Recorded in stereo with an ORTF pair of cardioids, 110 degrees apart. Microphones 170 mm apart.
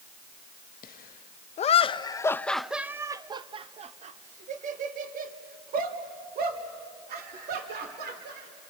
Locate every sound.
0.8 s laughter: 65° left, 1.0 m; by 8.5 s 65° right, 3 m